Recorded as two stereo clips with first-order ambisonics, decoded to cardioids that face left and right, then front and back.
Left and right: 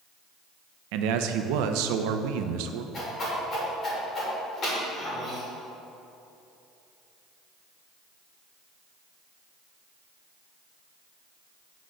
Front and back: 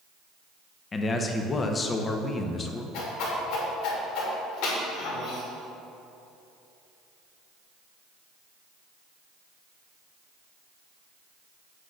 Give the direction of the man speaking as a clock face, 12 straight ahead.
2 o'clock.